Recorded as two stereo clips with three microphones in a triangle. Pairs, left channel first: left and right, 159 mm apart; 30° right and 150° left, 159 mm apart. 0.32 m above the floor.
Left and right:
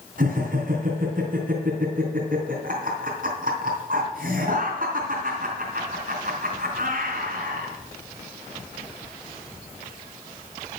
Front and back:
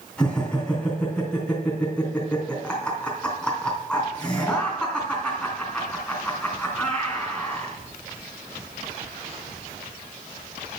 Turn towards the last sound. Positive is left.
turn(degrees=-115)